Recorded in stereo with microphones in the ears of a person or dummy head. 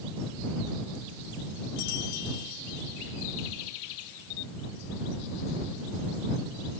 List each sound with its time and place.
Only background noise.